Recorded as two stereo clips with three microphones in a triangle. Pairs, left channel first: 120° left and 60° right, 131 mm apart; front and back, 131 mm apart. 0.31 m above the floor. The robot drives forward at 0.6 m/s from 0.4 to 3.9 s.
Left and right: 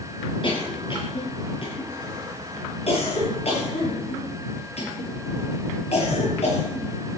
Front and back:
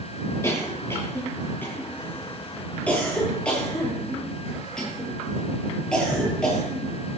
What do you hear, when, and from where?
0.4 s a cough: 70° left, 8 m; by 6.9 s 85° left, 7.5 m